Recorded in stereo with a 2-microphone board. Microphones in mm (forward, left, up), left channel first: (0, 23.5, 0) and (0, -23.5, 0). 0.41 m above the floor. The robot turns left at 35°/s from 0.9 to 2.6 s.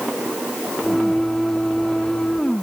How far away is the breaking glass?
No breaking glass in this recording.